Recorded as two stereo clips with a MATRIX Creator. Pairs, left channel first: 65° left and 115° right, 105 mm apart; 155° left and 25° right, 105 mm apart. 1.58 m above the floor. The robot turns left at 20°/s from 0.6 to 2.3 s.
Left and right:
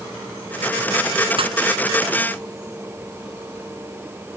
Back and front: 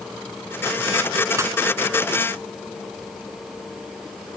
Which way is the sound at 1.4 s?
85° right.